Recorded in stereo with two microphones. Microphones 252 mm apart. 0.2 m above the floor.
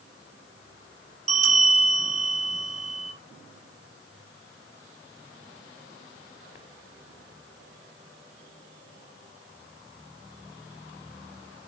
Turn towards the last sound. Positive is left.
turn(degrees=-65)  # may be behind; listen again after turning